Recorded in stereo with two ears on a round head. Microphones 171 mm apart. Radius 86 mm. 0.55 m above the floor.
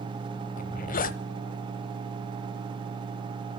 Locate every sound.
0.6 s a zipper: 45° left (ahead or behind), 0.8 m